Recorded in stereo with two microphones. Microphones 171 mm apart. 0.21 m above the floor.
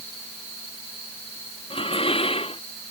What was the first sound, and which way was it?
Dishes clattering, 35° left (ahead or behind).